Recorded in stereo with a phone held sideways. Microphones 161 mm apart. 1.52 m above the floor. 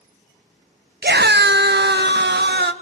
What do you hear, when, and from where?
1.0 s a scream: 70° right (ahead or behind), 0.9 m; by 2.7 s 80° right, 2.5 m